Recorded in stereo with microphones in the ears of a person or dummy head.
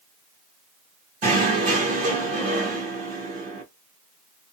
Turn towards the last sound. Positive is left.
turn(degrees=-40)  # may be behind; listen again after turning